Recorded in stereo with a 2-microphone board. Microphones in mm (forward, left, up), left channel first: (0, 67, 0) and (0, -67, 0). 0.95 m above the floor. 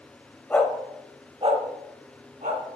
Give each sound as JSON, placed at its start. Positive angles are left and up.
{"t": 0.5, "sound": "a dog barking", "side_deg": 15, "distance_m": 1.3}